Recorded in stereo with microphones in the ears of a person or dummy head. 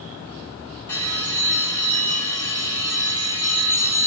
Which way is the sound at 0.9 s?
20° left (ahead or behind).